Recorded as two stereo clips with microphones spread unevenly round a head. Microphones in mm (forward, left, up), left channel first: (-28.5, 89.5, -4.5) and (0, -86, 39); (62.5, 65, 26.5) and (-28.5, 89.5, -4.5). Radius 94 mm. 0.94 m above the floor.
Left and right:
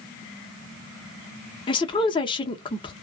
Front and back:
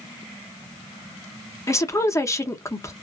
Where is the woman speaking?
55° left, 0.9 m.